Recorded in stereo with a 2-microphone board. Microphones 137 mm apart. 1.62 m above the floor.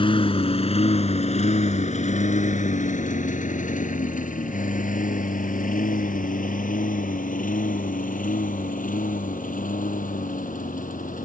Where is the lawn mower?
40° left (ahead or behind); by 11.3 s 80° left.